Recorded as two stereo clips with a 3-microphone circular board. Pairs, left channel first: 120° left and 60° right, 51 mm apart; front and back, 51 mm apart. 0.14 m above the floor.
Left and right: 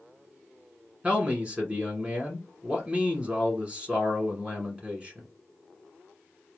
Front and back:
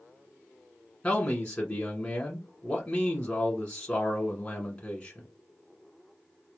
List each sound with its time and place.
1.0 s a man speaking: 30° right, 1.1 m